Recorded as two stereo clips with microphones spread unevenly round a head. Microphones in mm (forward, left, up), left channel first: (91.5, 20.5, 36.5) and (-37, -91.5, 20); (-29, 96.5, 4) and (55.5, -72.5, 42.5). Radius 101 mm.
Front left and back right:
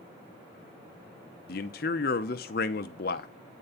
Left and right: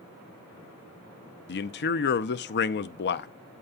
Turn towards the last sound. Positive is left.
turn(degrees=85)